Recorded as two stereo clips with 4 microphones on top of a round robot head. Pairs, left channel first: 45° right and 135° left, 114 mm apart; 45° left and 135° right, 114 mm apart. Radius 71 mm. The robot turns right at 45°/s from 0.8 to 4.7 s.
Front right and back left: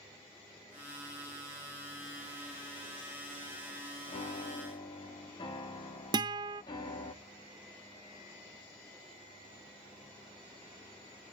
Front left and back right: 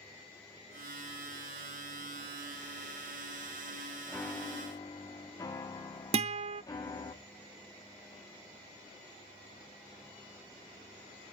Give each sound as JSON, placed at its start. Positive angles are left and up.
{"t": 4.1, "sound": "a piano", "azimuth_deg": -35, "distance_m": 1.6}
{"t": 6.1, "sound": "a guitar", "azimuth_deg": -170, "distance_m": 0.5}